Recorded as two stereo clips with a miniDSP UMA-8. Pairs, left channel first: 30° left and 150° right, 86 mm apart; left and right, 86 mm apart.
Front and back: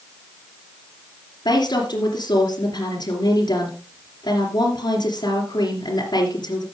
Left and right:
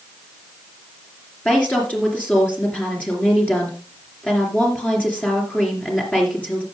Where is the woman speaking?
20° left, 3 m.